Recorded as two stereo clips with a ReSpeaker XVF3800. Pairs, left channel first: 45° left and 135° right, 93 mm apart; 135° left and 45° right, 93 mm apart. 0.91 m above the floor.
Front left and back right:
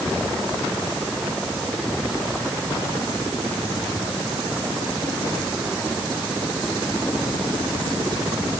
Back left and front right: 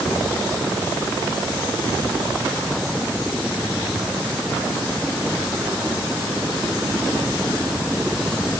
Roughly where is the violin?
I don't hear a violin.